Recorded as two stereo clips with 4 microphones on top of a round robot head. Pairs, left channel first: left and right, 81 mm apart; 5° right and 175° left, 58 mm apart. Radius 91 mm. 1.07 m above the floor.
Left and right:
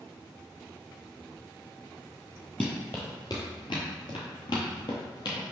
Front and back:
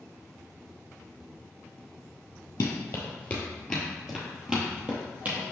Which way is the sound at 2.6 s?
10° left.